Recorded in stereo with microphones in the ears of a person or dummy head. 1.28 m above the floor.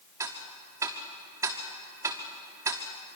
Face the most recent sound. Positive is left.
turn(degrees=-10)  # may be behind; listen again after turning